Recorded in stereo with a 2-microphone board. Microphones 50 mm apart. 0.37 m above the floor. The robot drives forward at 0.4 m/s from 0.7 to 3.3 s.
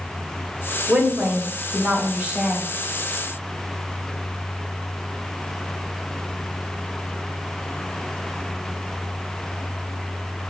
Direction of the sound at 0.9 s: 30° right (ahead or behind).